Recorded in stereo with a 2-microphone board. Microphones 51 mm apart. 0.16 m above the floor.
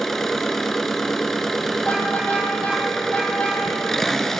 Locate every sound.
0.0 s an engine running: 5° left (ahead or behind), 0.7 m
1.8 s a car horn: 30° left (ahead or behind), 3 m